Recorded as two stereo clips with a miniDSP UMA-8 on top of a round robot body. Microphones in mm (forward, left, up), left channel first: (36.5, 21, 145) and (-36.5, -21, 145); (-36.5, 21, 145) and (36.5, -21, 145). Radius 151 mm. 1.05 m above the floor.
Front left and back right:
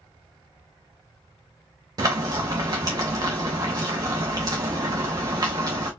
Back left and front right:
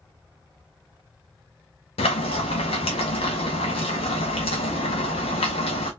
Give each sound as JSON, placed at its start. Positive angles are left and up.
{"t": 2.0, "sound": "frying", "azimuth_deg": 160, "distance_m": 0.6}